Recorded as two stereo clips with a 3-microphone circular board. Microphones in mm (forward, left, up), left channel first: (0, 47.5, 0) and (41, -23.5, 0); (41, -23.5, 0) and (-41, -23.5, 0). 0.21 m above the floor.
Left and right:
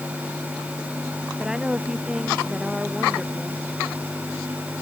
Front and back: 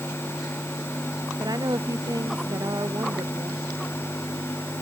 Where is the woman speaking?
140° right.